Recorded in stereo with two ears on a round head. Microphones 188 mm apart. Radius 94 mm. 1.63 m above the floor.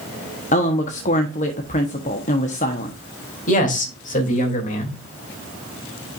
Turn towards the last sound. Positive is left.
turn(degrees=40)  # may be behind; listen again after turning